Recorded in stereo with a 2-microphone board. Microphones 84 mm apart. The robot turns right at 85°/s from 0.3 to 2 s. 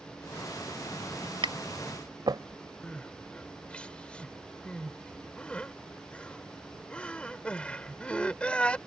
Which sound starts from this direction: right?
Tapping, at 1.4 s.